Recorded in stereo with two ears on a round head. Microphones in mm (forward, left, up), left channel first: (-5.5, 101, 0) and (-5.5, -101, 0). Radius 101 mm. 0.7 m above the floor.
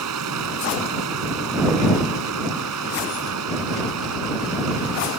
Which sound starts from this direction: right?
Running water, at 0.0 s.